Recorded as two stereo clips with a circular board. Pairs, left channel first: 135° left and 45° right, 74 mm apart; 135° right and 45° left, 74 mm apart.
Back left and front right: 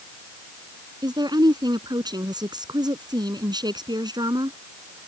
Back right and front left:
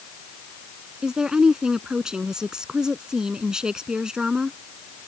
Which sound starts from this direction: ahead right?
A woman speaking, at 1.0 s.